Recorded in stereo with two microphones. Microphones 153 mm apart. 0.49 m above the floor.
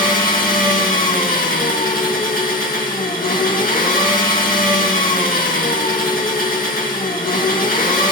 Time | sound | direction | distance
0.0 | an engine running | 70° left (ahead or behind) | 2.5 m